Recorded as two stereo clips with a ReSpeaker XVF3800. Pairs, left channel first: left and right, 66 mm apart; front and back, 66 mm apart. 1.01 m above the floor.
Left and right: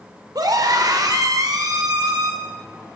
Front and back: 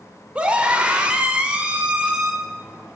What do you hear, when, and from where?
0.3 s a scream: 110° right, 3.5 m